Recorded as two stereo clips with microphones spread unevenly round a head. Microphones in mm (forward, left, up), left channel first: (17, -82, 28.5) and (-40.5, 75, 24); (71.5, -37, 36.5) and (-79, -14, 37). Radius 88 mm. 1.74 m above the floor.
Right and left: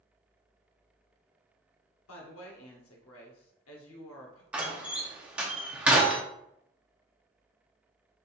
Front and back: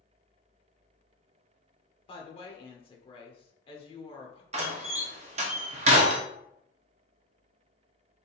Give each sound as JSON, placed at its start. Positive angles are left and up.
{"t": 2.1, "sound": "a woman speaking", "azimuth_deg": -65, "distance_m": 1.0}
{"t": 4.5, "sound": "a door slam", "azimuth_deg": -170, "distance_m": 0.6}